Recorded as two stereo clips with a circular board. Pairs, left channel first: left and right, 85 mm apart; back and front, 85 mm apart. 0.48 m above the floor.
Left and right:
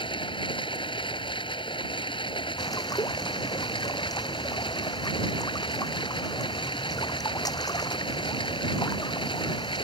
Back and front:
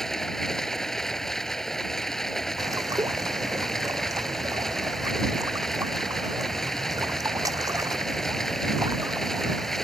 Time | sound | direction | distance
0.0 | running water | 95° left | ?
2.6 | a bird | 50° left | ?